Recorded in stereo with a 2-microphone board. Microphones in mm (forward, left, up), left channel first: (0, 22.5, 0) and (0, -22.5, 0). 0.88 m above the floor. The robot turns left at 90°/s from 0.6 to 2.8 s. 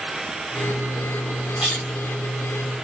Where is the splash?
20° right (ahead or behind), 1.7 m; by 2.9 s 75° left (ahead or behind), 1.7 m.